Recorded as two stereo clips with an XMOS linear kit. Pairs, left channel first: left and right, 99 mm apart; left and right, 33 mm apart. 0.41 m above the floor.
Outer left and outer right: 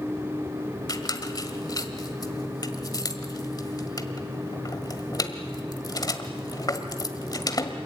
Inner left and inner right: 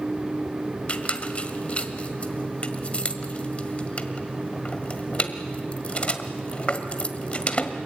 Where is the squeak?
40° left (ahead or behind), 1.5 m.